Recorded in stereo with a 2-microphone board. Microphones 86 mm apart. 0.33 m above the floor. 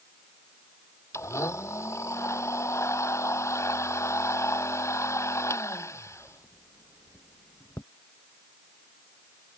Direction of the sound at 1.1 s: 35° left (ahead or behind).